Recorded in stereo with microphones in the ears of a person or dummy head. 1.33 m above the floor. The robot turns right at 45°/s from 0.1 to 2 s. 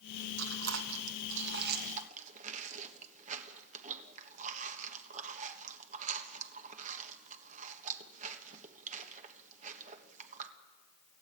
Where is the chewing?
65° right (ahead or behind), 1.4 m; by 10.5 s 45° right (ahead or behind), 1.4 m.